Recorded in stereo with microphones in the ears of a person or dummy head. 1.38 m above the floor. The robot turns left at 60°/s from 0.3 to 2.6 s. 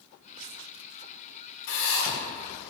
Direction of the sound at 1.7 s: 70° left (ahead or behind).